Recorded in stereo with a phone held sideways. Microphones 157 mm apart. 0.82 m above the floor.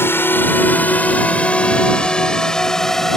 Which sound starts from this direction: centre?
A drone, at 0.0 s.